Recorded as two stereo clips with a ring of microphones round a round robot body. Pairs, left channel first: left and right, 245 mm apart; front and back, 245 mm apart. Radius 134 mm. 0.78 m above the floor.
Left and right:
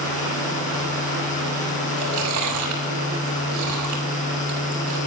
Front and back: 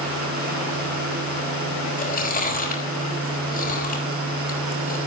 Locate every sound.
2.0 s chewing: 55° right, 5.5 m